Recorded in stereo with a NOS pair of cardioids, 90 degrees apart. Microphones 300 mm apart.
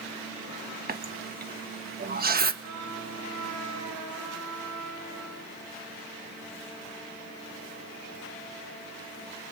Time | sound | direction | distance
0.9 | a running tap | 30° right | 1.4 m
2.6 | a trumpet | 70° right | 10 m